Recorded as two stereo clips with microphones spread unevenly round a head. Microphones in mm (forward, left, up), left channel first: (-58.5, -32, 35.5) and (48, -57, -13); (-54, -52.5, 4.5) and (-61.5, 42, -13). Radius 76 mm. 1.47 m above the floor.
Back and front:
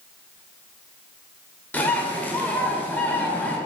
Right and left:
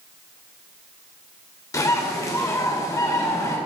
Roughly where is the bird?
Behind right.